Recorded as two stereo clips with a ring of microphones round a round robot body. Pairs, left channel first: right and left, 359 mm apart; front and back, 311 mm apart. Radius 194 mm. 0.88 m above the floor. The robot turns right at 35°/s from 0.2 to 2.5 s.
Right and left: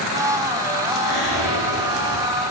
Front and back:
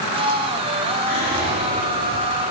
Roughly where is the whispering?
Right.